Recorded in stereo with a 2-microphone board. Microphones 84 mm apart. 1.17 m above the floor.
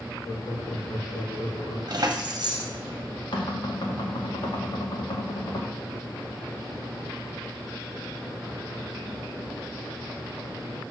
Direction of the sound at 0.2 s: 65° left (ahead or behind).